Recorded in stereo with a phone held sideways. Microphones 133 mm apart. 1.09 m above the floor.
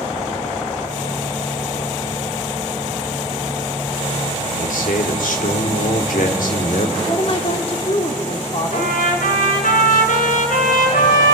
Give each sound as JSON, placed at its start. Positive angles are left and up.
{"t": 4.6, "sound": "a man speaking", "side_deg": 80, "distance_m": 3.0}
{"t": 7.0, "sound": "a woman speaking", "side_deg": 45, "distance_m": 3.0}
{"t": 8.7, "sound": "a trumpet", "side_deg": 80, "distance_m": 5.0}